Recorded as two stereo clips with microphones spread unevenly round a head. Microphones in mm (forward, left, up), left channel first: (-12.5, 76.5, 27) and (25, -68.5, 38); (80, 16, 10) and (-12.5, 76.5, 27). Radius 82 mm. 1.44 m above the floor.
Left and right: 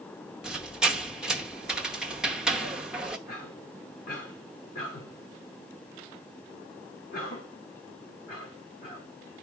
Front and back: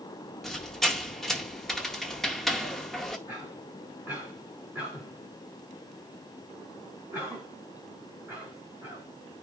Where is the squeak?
140° right, 0.7 m.